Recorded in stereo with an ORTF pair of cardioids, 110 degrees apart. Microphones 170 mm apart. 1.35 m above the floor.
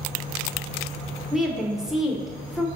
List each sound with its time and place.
1.3 s a woman speaking: 5° right, 0.8 m